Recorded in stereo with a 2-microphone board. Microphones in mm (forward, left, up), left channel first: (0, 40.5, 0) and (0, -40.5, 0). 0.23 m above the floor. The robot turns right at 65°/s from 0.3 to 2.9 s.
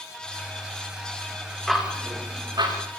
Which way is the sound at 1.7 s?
Centre (ahead or behind).